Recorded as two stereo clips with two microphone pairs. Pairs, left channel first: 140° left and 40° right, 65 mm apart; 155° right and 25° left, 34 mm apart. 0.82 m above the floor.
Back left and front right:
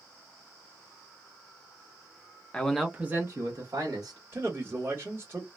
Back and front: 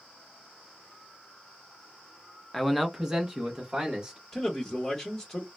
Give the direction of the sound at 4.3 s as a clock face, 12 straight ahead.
3 o'clock.